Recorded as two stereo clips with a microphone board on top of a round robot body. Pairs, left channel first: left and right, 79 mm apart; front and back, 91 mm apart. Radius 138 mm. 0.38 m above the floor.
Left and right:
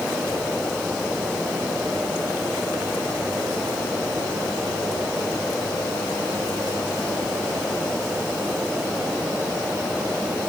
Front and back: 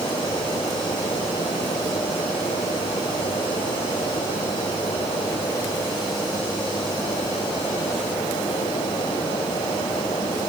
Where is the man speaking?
No man speaking in this recording.